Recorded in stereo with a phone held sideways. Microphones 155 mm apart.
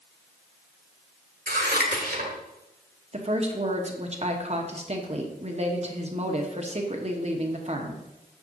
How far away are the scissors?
About 1.6 m.